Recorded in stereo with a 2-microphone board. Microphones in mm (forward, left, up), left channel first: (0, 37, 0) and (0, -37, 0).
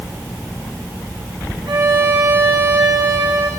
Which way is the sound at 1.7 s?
85° right.